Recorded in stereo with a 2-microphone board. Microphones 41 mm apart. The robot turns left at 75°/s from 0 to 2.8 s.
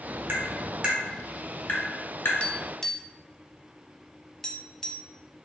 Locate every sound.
0.3 s tapping: 65° right (ahead or behind), 1.3 m; by 2.3 s 75° left (ahead or behind), 1.3 m
2.4 s tapping: 30° left (ahead or behind), 0.6 m; by 5.1 s 10° left (ahead or behind), 0.6 m